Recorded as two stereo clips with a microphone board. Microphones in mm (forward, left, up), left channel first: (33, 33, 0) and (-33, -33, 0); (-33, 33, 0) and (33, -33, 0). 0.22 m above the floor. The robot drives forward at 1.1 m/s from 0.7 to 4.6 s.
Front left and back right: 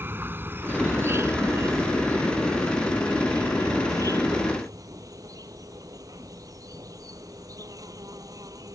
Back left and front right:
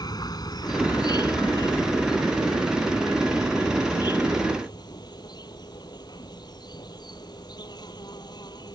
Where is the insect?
165° left; by 8.8 s 175° left.